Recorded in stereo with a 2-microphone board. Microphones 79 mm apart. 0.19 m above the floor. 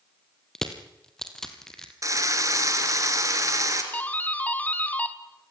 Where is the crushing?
10° left (ahead or behind), 2.5 m.